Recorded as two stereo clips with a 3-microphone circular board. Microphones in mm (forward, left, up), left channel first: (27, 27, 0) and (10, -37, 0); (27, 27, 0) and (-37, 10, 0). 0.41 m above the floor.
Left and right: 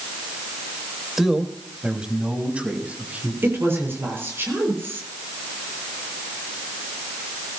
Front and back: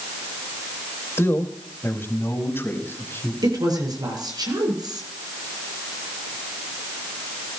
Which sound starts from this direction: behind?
A woman speaking, at 3.4 s.